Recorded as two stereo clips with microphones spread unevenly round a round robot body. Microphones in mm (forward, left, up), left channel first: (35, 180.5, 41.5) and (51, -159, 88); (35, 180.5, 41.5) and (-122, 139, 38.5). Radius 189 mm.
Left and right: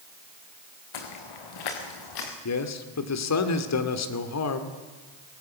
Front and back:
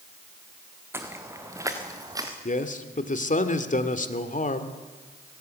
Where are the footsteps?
120° left, 3 m; by 2.3 s 125° left, 4 m.